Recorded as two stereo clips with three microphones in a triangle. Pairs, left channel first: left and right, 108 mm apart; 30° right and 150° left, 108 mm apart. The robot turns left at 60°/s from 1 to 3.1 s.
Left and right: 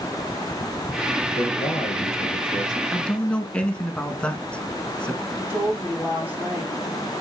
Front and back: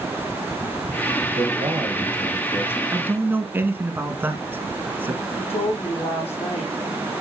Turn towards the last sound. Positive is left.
turn(degrees=-15)